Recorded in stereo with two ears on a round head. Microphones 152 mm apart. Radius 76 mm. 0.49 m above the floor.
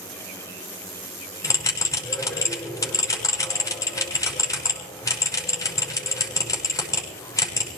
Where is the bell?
20° left (ahead or behind), 6 m.